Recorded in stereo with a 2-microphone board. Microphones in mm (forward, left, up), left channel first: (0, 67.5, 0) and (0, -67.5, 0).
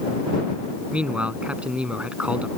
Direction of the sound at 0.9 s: 10° right (ahead or behind).